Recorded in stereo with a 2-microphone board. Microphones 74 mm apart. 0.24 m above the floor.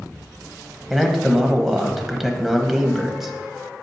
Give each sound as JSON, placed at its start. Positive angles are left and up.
{"t": 0.9, "sound": "a man speaking", "side_deg": -5, "distance_m": 1.0}